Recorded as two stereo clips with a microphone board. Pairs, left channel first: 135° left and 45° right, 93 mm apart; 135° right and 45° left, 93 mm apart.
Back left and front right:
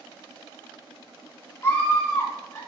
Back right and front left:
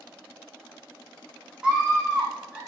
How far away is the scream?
About 1.1 m.